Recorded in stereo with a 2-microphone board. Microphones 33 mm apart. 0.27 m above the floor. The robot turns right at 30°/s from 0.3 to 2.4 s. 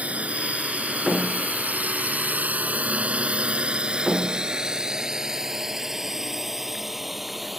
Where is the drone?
45° right (ahead or behind); by 7.6 s centre (ahead or behind).